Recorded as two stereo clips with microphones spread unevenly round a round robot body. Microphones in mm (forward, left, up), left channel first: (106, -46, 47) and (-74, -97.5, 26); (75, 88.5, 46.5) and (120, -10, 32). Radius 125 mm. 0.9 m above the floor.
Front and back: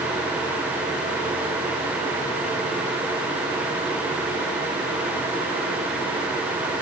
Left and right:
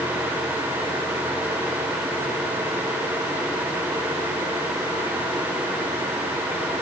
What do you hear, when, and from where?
Only background noise.